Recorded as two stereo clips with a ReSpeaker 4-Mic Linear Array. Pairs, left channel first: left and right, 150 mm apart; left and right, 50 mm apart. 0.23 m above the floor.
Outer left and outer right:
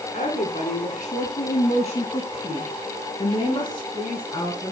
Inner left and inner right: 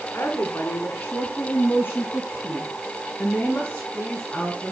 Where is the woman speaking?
55° left (ahead or behind), 3 m; by 4.7 s 25° left (ahead or behind), 3.5 m.